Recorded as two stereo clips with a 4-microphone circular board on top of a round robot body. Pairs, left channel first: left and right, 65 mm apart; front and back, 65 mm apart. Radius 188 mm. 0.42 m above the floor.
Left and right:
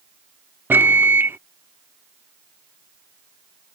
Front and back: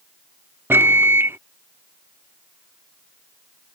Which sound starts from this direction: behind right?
A microwave, at 0.7 s.